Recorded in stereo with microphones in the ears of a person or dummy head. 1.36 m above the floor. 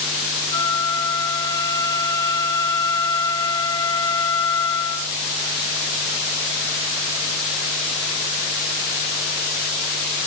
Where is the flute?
30° left (ahead or behind), 1.6 m.